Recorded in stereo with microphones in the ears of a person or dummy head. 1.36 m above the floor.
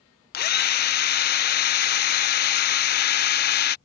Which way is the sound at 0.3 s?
50° left (ahead or behind).